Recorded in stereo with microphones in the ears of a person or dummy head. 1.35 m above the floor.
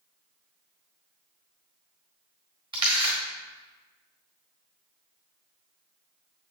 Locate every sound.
2.7 s a camera shutter: 25° right (ahead or behind), 1.8 m